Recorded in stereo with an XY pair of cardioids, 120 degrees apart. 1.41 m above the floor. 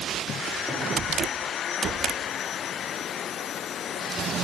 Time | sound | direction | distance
0.7 | a cupboard door | 5° right | 6.5 m